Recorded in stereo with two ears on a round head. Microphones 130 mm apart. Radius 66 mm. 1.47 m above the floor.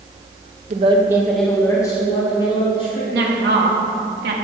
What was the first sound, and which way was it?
A woman speaking, 50° right (ahead or behind).